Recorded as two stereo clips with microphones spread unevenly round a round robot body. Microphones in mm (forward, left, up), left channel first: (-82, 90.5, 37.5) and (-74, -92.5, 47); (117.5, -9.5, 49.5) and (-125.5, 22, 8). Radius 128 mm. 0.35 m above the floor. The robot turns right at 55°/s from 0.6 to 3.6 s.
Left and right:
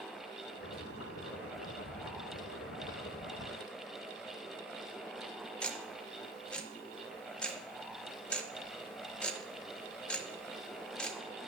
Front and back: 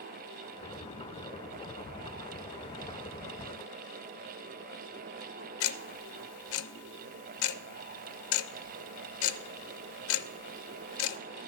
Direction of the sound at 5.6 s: 10° left.